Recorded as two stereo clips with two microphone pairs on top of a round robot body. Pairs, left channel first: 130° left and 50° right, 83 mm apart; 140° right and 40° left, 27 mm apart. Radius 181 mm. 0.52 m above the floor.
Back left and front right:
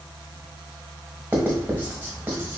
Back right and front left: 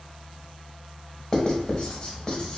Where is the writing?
105° right, 1.2 m.